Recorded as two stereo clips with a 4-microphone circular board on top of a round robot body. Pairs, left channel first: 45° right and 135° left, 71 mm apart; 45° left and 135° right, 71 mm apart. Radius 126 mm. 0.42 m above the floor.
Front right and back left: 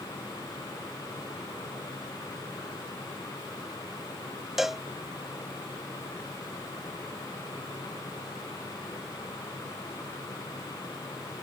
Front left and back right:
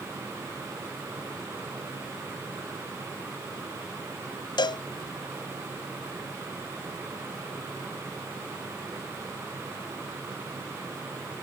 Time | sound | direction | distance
4.6 | a cowbell | 45° left | ?